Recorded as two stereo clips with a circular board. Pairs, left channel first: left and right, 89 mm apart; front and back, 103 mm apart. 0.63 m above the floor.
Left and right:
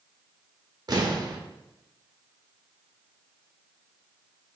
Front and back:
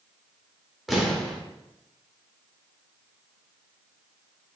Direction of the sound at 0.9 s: 90° right.